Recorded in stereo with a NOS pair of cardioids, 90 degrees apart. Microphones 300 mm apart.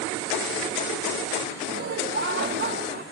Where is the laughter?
40° right; by 3.0 s 35° right.